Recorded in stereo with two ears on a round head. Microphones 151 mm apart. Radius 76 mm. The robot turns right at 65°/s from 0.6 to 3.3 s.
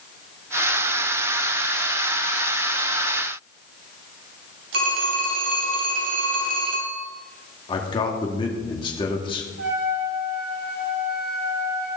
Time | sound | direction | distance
4.7 | a phone ringing | 75° right (ahead or behind) | 4 m
7.7 | a man speaking | 30° left (ahead or behind) | 2 m
9.6 | a trumpet | 80° right | 6 m